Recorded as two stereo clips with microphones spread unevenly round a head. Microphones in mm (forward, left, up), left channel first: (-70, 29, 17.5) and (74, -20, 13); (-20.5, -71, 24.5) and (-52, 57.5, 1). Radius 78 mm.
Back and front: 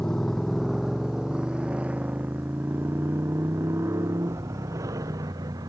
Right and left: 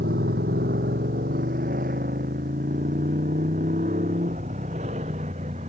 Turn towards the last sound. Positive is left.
turn(degrees=50)